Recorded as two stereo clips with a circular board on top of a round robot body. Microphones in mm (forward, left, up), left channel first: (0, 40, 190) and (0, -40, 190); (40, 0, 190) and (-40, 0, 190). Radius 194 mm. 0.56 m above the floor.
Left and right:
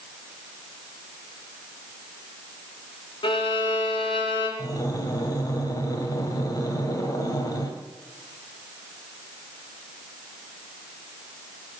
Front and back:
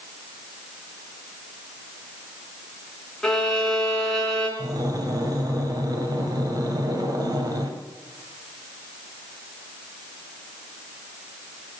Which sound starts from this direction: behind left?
Breathing, at 4.6 s.